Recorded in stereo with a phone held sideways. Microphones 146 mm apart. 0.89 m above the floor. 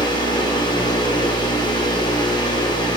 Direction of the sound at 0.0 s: 30° left (ahead or behind).